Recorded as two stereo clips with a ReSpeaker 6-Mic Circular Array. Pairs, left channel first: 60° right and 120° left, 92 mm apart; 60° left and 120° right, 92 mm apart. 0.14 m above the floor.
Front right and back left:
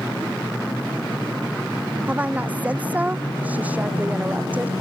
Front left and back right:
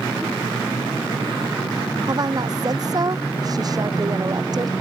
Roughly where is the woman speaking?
Behind.